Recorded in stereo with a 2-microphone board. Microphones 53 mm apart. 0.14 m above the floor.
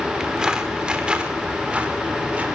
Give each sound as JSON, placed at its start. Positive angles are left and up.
{"t": 0.2, "sound": "footsteps", "side_deg": -15, "distance_m": 4.5}